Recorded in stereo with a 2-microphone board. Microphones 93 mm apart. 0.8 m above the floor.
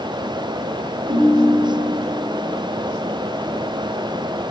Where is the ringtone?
50° right (ahead or behind), 3 m.